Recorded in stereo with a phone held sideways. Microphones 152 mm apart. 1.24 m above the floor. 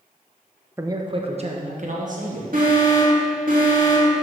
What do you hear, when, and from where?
0.8 s a man speaking: 15° right (ahead or behind), 0.7 m; by 2.4 s 60° right (ahead or behind), 1.8 m
2.5 s an alarm: 65° right (ahead or behind), 2.5 m